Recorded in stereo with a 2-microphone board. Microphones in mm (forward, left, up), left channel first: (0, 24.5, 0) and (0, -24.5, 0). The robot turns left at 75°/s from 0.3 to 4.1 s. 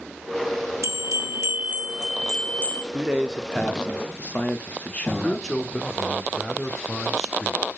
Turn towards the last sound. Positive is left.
turn(degrees=10)  # may be behind; listen again after turning